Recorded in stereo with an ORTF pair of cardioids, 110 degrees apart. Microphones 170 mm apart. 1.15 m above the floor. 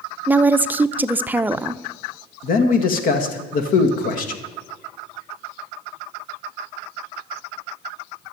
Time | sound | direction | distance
0.3 | a woman speaking | 10° right | 0.6 m
2.4 | a man speaking | 60° left | 1.8 m